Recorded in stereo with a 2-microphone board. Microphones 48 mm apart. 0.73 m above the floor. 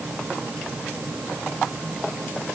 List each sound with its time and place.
Only background noise.